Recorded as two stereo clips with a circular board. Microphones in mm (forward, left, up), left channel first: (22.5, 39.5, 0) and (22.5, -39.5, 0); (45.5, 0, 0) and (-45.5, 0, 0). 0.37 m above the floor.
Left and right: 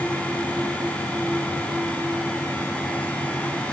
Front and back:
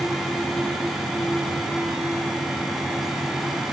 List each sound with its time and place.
Only background noise.